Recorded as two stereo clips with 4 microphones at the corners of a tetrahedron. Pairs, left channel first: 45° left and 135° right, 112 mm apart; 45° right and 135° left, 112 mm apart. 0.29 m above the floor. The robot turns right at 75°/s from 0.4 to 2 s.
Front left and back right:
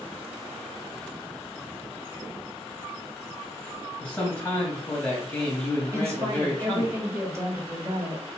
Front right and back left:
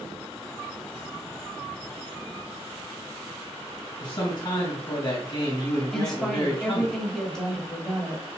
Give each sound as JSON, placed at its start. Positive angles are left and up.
{"t": 4.0, "sound": "a man speaking", "azimuth_deg": -30, "distance_m": 2.5}
{"t": 5.9, "sound": "a woman speaking", "azimuth_deg": -120, "distance_m": 1.4}